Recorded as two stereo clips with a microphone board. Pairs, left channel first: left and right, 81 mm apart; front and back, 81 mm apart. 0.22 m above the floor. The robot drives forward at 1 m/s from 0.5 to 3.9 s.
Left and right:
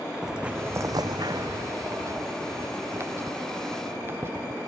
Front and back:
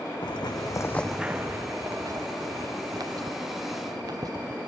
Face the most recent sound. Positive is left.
turn(degrees=-145)